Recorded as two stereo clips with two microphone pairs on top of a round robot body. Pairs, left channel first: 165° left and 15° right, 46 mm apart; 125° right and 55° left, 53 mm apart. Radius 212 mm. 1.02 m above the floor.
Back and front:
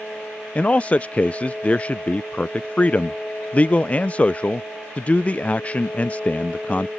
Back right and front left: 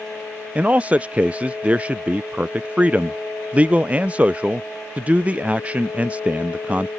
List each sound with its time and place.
0.6 s a man speaking: 105° left